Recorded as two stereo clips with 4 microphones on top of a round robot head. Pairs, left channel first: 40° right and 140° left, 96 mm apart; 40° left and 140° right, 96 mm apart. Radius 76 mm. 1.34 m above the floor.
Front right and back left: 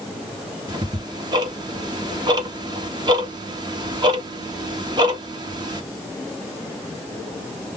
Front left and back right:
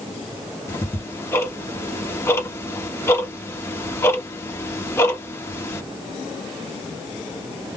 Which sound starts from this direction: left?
Ticking, at 0.7 s.